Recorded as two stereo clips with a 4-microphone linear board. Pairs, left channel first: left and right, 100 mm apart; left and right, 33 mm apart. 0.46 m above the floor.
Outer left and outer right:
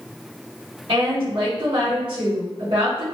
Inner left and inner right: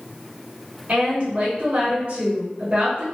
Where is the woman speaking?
55° right (ahead or behind), 1.4 m.